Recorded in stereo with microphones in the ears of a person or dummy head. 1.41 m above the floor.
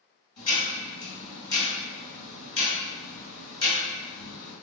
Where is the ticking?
25° left (ahead or behind), 1.6 m.